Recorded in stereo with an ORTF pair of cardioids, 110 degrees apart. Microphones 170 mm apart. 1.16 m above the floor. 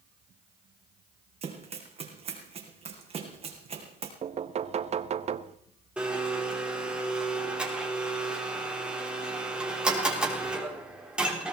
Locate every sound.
1.4 s running footsteps: 35° right, 4 m
4.2 s knocking: 40° right, 0.9 m
6.0 s a blender: 5° right, 4 m